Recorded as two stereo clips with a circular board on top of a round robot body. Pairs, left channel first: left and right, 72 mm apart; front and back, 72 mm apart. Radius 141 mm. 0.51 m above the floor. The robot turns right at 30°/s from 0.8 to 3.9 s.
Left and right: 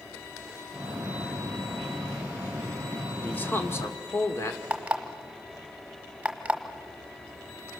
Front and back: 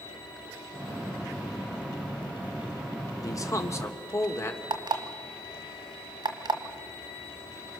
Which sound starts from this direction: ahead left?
A man speaking, at 3.2 s.